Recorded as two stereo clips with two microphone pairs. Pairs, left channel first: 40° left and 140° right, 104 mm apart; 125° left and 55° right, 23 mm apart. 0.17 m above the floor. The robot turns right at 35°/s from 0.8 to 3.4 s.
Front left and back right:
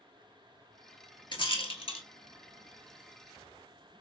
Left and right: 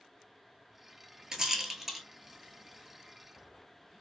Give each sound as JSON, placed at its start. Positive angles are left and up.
{"t": 1.3, "sound": "a rattle", "azimuth_deg": 5, "distance_m": 0.7}